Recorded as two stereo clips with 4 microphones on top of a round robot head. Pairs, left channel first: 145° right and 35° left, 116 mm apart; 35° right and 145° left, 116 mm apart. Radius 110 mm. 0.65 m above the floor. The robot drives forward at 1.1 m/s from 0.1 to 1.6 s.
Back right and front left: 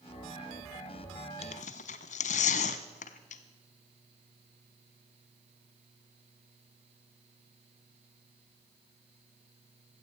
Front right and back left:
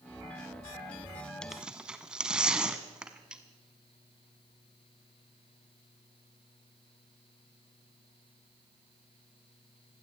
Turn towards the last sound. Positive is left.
turn(degrees=-130)